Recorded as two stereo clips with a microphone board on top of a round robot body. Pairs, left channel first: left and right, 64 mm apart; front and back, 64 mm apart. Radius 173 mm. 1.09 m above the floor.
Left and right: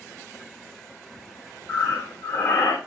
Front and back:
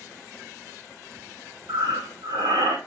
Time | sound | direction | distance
1.7 | breathing | 145° left | 1.2 m